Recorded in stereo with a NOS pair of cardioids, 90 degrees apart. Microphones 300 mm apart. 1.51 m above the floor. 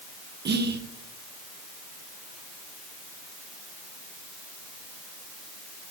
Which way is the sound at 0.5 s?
35° right.